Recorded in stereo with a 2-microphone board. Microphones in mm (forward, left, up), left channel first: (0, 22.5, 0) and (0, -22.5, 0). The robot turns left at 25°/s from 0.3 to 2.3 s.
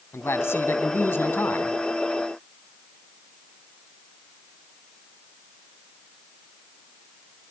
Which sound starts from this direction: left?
A man speaking, at 0.1 s.